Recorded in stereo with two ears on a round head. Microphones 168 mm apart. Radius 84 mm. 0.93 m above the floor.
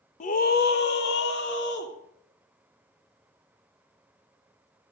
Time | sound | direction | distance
0.2 | a scream | 40° left (ahead or behind) | 1.2 m